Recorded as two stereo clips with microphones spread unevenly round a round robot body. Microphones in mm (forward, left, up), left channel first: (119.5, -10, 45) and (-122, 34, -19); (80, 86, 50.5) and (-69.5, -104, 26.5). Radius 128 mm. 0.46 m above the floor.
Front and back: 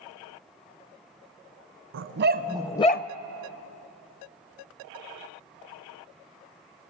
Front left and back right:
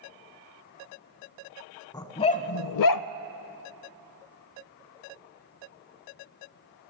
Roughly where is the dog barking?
Behind left.